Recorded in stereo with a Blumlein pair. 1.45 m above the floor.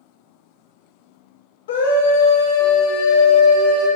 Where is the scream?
60° left, 0.9 m; by 3.9 s 65° left, 2 m.